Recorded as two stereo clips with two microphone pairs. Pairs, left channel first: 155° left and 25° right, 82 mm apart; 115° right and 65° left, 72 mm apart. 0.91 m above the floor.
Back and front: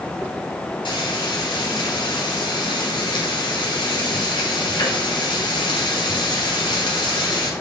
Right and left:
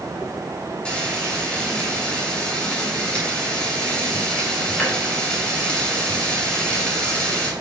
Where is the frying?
170° left, 3 m.